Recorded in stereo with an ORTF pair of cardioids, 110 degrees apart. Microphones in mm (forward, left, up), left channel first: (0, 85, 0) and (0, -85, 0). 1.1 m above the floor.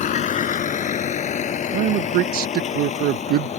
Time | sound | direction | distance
0.0 | a vehicle | 50° left | ?
1.7 | a man speaking | 70° right | ?